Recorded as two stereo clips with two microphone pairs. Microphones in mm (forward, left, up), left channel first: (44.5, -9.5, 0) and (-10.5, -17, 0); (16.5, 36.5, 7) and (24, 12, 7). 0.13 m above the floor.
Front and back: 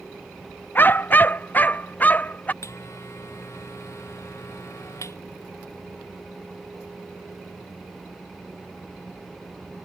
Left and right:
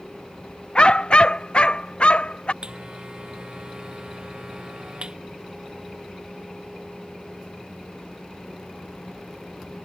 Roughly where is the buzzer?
Ahead.